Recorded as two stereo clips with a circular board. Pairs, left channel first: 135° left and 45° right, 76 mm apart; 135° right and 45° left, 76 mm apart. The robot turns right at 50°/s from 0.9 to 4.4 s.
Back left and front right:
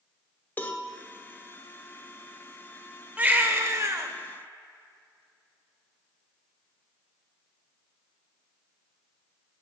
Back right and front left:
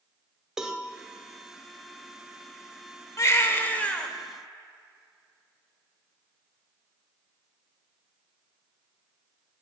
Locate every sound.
0.6 s a cowbell: 115° left, 1.0 m
3.2 s a baby crying: 105° right, 1.0 m; by 4.1 s 60° right, 1.0 m